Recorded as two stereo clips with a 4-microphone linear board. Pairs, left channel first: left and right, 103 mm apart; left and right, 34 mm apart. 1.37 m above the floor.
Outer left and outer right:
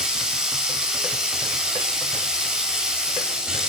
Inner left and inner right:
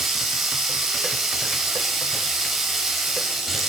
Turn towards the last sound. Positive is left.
turn(degrees=-10)  # may be behind; listen again after turning